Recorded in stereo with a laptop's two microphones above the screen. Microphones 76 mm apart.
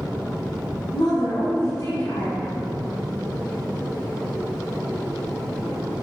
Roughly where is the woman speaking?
Left.